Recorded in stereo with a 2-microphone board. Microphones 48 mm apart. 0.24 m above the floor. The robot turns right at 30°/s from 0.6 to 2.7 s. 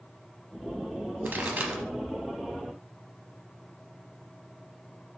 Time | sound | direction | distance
1.2 | a pop | 45° right (ahead or behind) | 0.8 m